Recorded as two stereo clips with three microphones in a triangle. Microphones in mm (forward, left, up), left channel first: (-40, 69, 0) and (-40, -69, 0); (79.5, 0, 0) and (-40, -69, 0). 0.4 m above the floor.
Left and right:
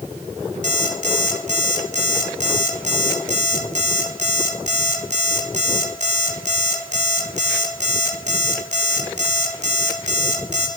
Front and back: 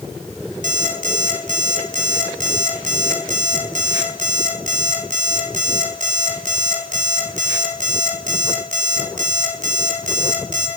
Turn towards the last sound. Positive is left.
turn(degrees=-120)